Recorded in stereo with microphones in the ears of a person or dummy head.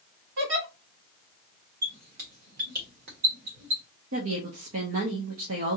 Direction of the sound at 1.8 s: 50° right (ahead or behind).